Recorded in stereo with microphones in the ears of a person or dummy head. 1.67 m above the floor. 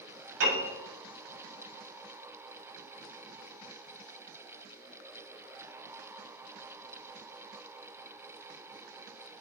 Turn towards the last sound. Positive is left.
turn(degrees=-75)  # may be behind; listen again after turning